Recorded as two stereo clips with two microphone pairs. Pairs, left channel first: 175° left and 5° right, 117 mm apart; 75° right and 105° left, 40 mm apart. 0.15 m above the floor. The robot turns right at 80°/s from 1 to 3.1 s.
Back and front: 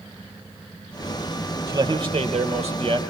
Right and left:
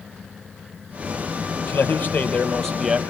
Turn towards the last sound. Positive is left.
turn(degrees=40)